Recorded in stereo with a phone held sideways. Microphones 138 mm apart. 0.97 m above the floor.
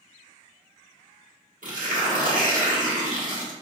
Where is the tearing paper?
75° right (ahead or behind), 1.2 m.